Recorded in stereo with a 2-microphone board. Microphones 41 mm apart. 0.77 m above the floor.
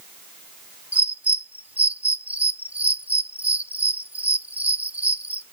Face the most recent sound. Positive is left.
turn(degrees=-40)  # may be behind; listen again after turning